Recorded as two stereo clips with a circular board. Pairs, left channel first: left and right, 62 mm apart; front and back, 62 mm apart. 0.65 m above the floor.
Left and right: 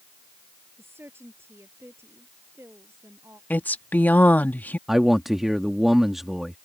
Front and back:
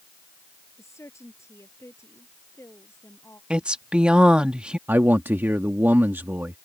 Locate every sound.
0.8 s a woman speaking: 40° right; by 3.4 s 45° right
3.5 s a woman speaking: 120° left
4.9 s a man speaking: 175° right